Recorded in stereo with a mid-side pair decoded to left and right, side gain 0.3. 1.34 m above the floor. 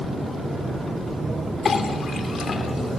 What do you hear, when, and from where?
1.6 s a clink: 60° left, 3 m